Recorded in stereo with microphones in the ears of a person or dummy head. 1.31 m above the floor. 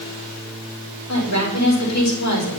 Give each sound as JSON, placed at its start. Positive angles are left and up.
{"t": 1.1, "sound": "a woman speaking", "side_deg": 80, "distance_m": 4.0}